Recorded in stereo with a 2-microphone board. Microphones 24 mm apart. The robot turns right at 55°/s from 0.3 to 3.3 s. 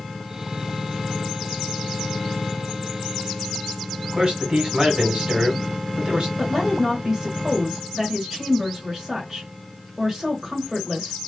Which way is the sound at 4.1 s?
40° right (ahead or behind).